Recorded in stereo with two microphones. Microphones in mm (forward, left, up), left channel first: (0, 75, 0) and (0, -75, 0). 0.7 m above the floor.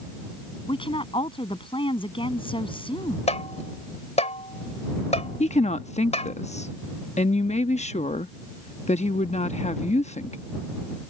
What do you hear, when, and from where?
0.7 s a woman speaking: 35° left (ahead or behind)
3.3 s tapping: 50° left (ahead or behind)
5.4 s a woman speaking: 50° left (ahead or behind)